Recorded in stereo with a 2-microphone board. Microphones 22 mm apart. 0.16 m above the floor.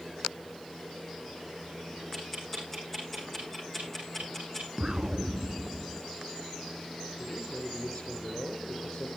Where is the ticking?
10° left (ahead or behind), 7 m.